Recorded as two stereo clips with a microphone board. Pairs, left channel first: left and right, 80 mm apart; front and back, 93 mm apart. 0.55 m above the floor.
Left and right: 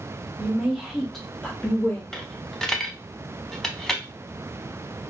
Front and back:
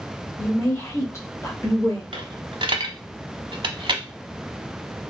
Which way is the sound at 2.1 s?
170° left.